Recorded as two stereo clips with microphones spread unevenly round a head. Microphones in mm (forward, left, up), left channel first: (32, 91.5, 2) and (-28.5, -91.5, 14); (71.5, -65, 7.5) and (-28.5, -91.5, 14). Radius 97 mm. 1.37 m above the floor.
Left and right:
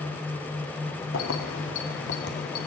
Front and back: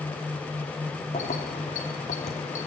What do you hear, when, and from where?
1.1 s keys jangling: 55° left, 1.7 m; by 2.7 s 30° left, 1.8 m